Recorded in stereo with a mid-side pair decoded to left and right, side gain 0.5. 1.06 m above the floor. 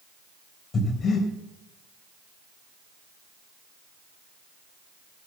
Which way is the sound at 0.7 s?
45° left.